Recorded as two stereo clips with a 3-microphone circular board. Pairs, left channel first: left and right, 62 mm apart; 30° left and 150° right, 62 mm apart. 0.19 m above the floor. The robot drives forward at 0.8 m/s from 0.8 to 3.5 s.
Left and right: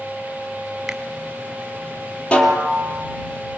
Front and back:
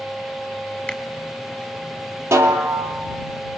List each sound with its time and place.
0.9 s a finger snap: 15° right, 1.5 m; by 1.0 s 20° right, 1.4 m
2.3 s a snare drum: 160° left, 2.5 m; by 3.0 s 165° left, 3 m